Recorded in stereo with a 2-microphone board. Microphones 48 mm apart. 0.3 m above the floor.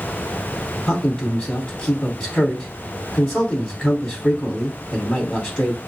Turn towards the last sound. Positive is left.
turn(degrees=15)  # may be behind; listen again after turning